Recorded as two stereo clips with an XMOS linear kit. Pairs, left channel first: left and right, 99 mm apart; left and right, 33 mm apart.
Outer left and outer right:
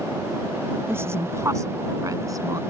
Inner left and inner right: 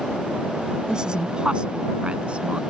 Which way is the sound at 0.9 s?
25° right (ahead or behind).